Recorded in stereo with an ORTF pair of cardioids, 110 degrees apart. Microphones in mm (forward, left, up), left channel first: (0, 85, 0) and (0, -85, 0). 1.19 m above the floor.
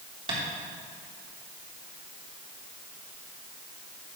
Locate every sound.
0.3 s tapping: 35° right, 3.5 m